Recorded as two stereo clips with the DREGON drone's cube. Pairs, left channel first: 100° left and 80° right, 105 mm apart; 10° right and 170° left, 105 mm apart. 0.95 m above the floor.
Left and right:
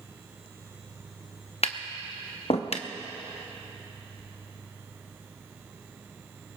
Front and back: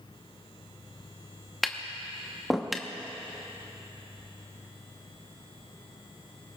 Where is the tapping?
80° left, 0.8 m.